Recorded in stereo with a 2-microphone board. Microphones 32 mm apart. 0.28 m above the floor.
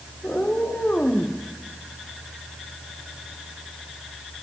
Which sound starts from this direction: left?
A cat meowing, at 0.2 s.